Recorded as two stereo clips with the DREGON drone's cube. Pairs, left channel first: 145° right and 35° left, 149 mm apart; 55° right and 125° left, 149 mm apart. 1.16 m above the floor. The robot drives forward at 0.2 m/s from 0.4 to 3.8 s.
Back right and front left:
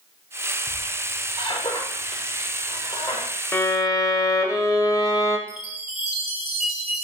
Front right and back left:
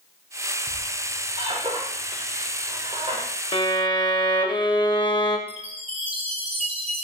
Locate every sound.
0.7 s a squeak: 165° left, 1.1 m; by 3.3 s 170° left, 1.5 m
3.5 s a violin: 85° right, 0.7 m; by 5.4 s 90° right, 0.7 m
5.5 s a chime: 80° left, 0.9 m